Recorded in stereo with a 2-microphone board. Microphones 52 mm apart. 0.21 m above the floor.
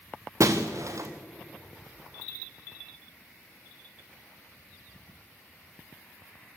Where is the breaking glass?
75° right (ahead or behind), 1.9 m.